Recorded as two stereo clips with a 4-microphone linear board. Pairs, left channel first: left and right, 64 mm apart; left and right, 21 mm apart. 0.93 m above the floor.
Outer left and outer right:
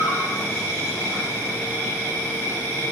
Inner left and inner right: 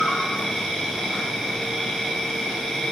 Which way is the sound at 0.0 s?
35° left (ahead or behind).